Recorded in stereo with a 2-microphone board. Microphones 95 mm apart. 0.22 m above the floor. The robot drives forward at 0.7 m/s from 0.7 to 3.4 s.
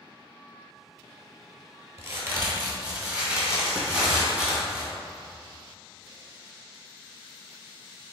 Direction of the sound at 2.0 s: 30° right (ahead or behind).